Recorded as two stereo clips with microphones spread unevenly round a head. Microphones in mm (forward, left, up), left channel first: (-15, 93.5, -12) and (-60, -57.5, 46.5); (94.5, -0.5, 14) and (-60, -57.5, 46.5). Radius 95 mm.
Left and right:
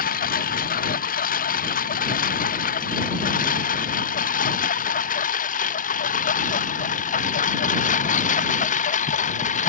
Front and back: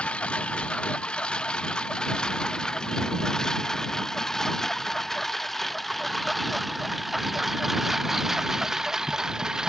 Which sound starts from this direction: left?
A lawn mower, at 0.0 s.